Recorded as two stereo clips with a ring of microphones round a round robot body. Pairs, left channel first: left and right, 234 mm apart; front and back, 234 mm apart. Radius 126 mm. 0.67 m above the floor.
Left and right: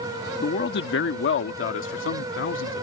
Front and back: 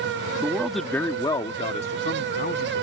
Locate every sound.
0.4 s a man speaking: 105° left; by 2.8 s 55° left